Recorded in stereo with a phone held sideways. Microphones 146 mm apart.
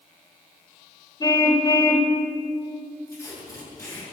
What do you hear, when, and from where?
1.2 s a car horn: 30° left (ahead or behind), 2 m
3.1 s tape being pulled: 20° left (ahead or behind), 8.5 m